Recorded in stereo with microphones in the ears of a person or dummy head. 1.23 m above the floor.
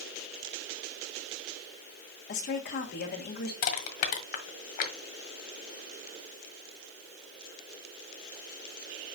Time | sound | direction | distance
2.3 | a woman speaking | 50° left (ahead or behind) | 2 m
3.6 | crushing | 45° left (ahead or behind) | 1.5 m